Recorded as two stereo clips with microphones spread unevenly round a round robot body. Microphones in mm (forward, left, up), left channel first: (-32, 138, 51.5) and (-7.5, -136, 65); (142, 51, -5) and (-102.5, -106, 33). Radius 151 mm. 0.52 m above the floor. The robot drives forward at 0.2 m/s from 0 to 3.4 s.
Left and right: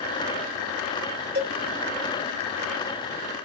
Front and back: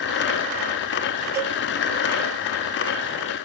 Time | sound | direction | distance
1.4 | a cowbell | 55° right | 1.6 m